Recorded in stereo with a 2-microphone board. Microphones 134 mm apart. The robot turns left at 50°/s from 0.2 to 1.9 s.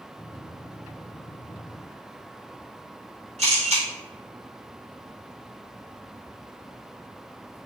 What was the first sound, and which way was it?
A camera shutter, 55° right (ahead or behind).